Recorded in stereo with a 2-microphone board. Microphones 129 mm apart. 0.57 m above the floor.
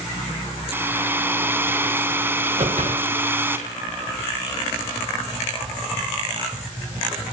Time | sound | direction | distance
0.7 | a hair dryer | 15° right (ahead or behind) | 4 m
2.6 | a whoosh | 65° right (ahead or behind) | 3.5 m